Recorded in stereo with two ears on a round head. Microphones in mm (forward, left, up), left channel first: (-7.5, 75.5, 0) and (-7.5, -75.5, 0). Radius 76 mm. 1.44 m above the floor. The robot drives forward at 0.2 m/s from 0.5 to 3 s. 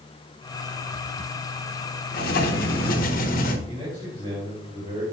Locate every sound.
2.1 s writing: 60° left (ahead or behind), 1.0 m; by 3.6 s 55° left (ahead or behind), 1.1 m
3.7 s a man speaking: 35° right (ahead or behind), 3.5 m